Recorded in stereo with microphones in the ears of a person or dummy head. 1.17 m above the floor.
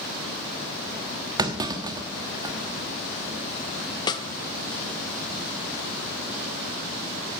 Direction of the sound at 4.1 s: 20° left (ahead or behind).